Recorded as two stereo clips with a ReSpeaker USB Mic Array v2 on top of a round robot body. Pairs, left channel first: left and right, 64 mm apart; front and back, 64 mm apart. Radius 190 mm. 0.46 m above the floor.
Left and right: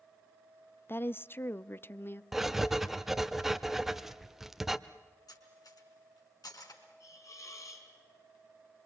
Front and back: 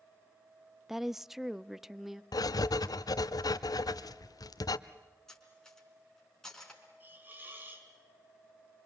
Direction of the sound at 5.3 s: 85° left.